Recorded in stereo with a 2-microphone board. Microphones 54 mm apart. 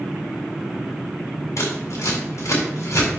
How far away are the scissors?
About 4.5 m.